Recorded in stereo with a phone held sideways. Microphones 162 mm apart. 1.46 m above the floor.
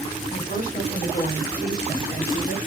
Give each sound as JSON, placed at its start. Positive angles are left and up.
{"t": 0.3, "sound": "a woman speaking", "side_deg": 85, "distance_m": 4.5}